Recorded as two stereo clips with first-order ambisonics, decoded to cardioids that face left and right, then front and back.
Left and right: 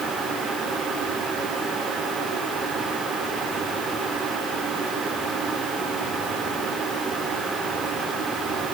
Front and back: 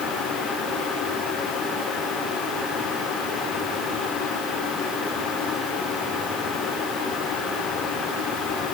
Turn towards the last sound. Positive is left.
No sound to turn to.